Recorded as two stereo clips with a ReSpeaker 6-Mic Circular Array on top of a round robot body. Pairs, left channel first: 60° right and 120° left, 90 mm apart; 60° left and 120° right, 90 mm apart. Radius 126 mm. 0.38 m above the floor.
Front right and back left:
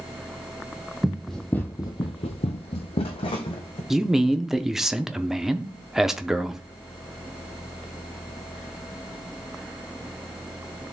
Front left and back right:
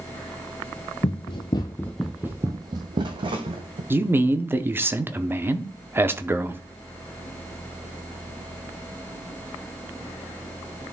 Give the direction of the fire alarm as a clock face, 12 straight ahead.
No fire alarm in this recording.